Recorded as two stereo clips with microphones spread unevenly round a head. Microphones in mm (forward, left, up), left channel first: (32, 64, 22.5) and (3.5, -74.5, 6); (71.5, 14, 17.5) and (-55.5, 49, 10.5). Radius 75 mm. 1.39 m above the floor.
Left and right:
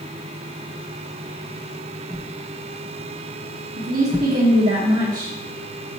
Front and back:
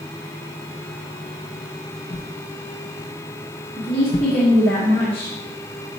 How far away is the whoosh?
About 0.7 m.